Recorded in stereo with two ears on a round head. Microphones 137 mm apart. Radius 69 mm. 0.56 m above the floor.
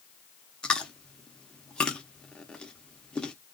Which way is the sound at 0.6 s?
5° left (ahead or behind).